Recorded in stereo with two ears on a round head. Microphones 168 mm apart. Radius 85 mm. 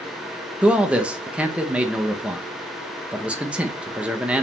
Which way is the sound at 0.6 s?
5° right (ahead or behind).